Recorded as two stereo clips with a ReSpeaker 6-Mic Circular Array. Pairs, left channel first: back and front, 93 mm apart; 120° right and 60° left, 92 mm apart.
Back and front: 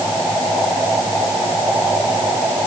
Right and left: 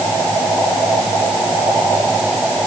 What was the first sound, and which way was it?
Only background noise.